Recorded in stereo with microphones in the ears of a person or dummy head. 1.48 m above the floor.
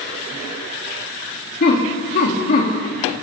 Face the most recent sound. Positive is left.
turn(degrees=45)  # may be behind; listen again after turning